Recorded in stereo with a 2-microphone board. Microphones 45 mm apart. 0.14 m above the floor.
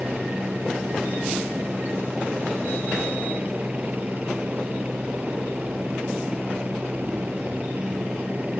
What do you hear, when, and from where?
0.0 s a helicopter: 35° right (ahead or behind)